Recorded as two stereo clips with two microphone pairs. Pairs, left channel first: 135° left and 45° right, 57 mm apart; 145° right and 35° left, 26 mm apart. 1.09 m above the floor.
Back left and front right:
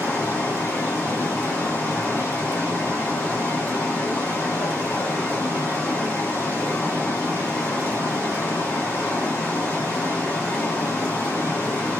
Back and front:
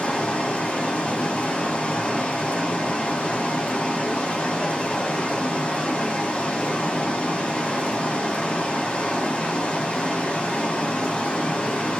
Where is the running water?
160° right, 2 m.